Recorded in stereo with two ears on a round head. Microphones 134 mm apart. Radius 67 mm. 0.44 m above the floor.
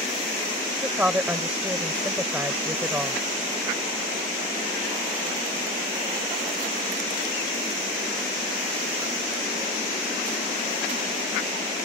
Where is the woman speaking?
10° right (ahead or behind).